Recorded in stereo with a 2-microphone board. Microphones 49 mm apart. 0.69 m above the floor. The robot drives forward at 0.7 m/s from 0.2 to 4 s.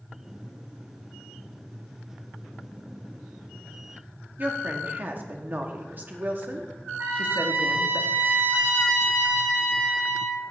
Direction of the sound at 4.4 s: 40° right (ahead or behind).